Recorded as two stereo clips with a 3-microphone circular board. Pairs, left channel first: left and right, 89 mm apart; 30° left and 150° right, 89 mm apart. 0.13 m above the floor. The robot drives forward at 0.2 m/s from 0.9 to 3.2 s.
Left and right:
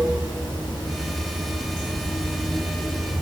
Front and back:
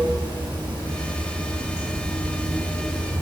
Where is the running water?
165° left, 1.4 m; by 3.2 s 170° left, 1.9 m.